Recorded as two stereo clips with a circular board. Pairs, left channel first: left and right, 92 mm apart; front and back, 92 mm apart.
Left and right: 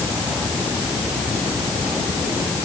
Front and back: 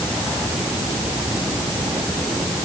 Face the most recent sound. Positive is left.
No sound to turn to.